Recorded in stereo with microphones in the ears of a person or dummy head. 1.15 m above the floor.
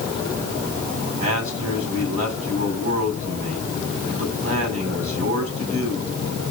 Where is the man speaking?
30° right (ahead or behind), 6.5 m.